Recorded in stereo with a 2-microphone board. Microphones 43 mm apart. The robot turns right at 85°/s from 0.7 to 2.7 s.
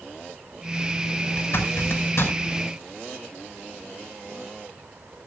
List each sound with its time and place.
1.4 s a zipper: 40° left (ahead or behind), 5.5 m; by 2.3 s 55° left (ahead or behind), 5.5 m